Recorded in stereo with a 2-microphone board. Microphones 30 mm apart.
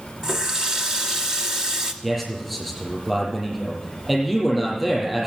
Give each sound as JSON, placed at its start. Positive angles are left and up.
{"t": 0.2, "sound": "a running tap", "side_deg": -20, "distance_m": 1.1}
{"t": 2.0, "sound": "a man speaking", "side_deg": -10, "distance_m": 6.0}